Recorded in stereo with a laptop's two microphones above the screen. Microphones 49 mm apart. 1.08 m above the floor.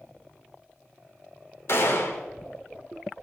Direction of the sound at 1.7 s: 55° left (ahead or behind).